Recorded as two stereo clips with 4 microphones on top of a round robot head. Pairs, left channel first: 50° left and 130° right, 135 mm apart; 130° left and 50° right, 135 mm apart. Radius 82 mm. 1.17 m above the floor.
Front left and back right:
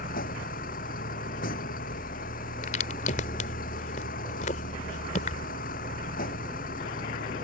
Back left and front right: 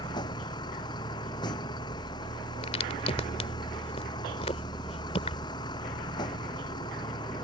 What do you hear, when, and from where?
0.0 s a vehicle: 70° left
2.6 s a crack: 85° left